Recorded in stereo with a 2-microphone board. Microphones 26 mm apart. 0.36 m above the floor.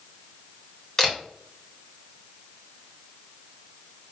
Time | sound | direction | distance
1.0 | a camera shutter | 15° left (ahead or behind) | 1.4 m